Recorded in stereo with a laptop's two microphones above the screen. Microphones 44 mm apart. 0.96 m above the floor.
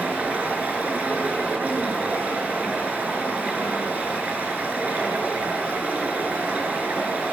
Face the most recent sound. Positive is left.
turn(degrees=-40)  # may be behind; listen again after turning